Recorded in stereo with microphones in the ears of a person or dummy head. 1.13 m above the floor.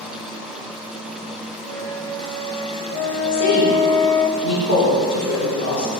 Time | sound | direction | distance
1.6 | a flute | 15° left (ahead or behind) | 1.4 m
3.3 | a woman speaking | 80° left | 3.5 m